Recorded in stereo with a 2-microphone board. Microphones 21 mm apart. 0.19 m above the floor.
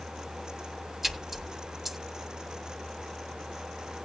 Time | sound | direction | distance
1.0 | a splash | 10° right (ahead or behind) | 1.7 m